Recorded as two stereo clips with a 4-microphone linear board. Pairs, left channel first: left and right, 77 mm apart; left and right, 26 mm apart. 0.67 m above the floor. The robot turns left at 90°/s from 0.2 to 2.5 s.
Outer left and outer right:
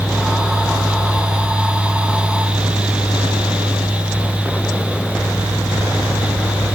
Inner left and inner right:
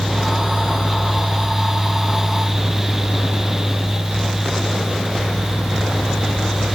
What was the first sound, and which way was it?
Only background noise.